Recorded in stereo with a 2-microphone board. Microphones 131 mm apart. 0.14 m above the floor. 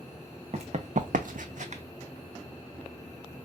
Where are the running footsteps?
55° right (ahead or behind), 0.8 m.